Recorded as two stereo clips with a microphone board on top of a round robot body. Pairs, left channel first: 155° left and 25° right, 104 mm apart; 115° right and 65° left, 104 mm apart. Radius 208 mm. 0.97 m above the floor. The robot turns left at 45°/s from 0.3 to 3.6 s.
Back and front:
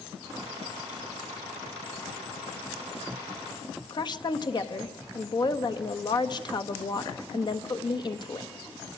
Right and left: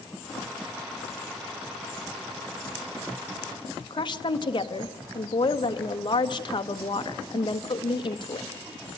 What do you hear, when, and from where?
3.9 s a woman speaking: 155° right, 1.4 m